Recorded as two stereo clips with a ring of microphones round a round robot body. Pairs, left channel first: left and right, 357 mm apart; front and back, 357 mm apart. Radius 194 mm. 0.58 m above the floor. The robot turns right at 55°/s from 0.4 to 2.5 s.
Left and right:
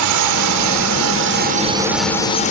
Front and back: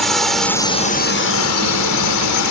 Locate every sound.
0.0 s a drone: 90° right; by 2.5 s 25° left